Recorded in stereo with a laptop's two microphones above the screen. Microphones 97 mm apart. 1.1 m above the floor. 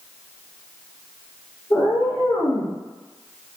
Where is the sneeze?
I don't hear a sneeze.